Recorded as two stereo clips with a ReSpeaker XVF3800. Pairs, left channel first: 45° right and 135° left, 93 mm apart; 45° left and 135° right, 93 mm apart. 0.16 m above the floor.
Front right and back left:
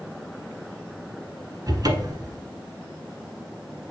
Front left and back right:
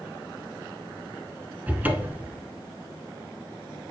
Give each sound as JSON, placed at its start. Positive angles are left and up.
{"t": 1.7, "sound": "a cupboard door", "azimuth_deg": 160, "distance_m": 0.8}